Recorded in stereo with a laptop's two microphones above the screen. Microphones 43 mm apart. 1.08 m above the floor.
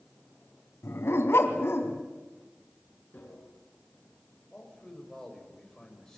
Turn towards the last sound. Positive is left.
turn(degrees=10)  # may be behind; listen again after turning